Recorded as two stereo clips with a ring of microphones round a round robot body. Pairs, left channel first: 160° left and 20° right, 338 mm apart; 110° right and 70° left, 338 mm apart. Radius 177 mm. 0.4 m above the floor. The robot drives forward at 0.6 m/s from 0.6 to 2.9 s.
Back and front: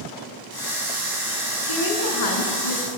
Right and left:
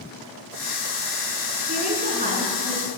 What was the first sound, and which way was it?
A woman speaking, 135° left.